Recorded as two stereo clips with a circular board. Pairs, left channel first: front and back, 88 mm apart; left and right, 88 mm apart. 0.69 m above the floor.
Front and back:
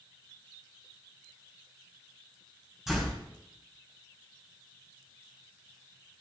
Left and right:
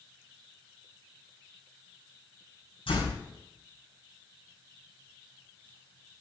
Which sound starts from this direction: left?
A door slam, at 2.9 s.